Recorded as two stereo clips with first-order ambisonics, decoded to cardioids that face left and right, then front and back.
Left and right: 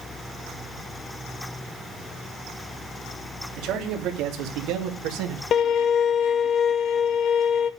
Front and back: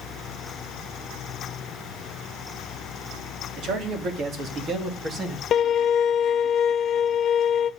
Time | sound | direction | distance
3.6 | a man speaking | 130° right | 3 m
5.5 | a violin | 45° left | 0.8 m